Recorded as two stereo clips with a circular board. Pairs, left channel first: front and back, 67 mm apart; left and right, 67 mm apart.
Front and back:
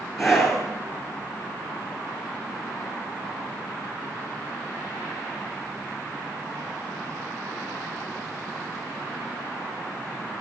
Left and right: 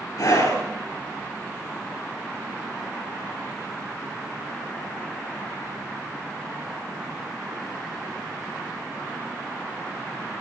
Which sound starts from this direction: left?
A scream, at 0.2 s.